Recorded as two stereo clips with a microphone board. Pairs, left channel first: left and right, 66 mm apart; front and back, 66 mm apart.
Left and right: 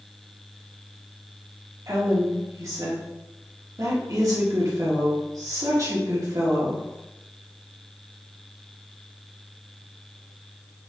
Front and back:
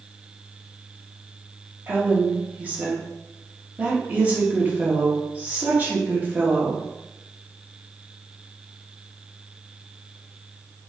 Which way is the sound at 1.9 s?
115° right.